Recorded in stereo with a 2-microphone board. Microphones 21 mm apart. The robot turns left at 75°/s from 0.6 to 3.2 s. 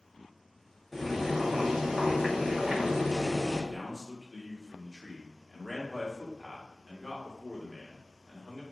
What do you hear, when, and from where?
0.9 s boiling: straight ahead, 1.1 m; by 3.6 s 175° right, 1.1 m
3.7 s a man speaking: 5° right (ahead or behind), 1.2 m